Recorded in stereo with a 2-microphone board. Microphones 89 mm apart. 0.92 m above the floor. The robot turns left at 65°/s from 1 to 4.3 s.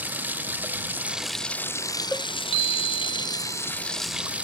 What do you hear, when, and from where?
0.0 s running water: 160° right; by 4.5 s 15° right
2.1 s a cowbell: 15° left (ahead or behind); by 2.3 s 5° left (ahead or behind)